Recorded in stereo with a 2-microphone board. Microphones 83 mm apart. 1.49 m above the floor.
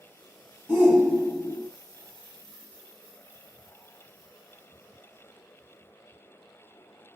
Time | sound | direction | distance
0.7 | a shout | 25° right (ahead or behind) | 1.7 m